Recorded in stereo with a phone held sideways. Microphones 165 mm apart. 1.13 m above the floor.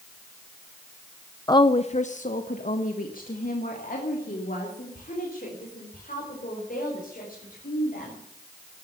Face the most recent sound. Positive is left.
turn(degrees=60)  # may be behind; listen again after turning